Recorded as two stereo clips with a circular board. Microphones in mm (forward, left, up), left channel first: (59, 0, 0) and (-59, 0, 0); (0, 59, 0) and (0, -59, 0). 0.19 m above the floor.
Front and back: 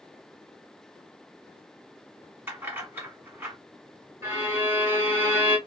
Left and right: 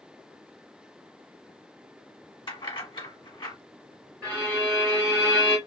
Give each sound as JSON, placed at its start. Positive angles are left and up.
{"t": 2.5, "sound": "keys jangling", "azimuth_deg": 115, "distance_m": 1.4}
{"t": 4.2, "sound": "a violin", "azimuth_deg": 155, "distance_m": 1.8}